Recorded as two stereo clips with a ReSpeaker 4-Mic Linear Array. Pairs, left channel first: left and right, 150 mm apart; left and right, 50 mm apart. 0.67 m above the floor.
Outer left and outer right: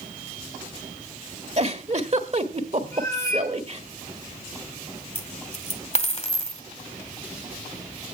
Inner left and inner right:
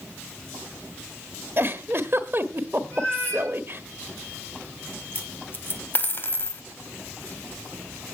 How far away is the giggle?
About 1.5 m.